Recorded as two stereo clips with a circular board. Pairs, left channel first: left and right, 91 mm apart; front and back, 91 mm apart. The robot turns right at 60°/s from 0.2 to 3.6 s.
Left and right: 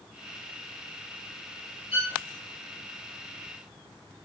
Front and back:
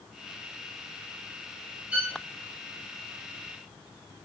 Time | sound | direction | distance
1.9 | a violin | 100° left | 2.5 m